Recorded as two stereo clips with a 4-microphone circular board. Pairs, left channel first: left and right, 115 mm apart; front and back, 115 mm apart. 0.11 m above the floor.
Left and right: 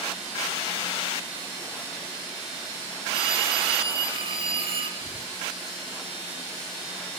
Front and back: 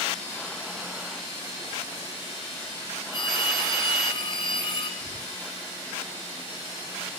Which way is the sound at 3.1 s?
45° right.